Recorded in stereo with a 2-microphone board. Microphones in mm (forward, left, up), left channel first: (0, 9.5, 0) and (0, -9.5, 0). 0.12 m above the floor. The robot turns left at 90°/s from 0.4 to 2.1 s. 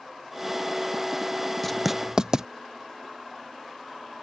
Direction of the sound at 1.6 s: 10° left (ahead or behind).